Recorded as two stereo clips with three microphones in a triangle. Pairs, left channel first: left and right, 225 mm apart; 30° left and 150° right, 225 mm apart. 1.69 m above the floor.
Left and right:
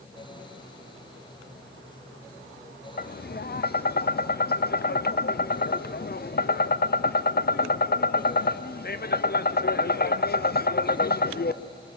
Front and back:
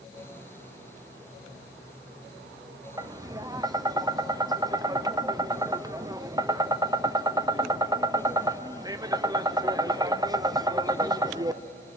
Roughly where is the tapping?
Behind left.